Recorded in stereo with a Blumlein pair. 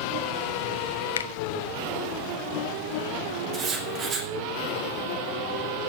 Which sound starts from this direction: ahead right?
Writing, at 3.5 s.